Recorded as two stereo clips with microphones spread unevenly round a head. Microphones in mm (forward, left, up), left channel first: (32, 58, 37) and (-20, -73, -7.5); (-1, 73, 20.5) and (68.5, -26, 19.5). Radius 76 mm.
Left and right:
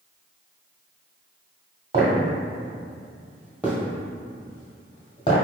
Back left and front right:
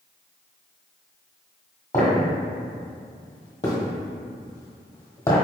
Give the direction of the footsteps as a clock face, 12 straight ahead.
6 o'clock.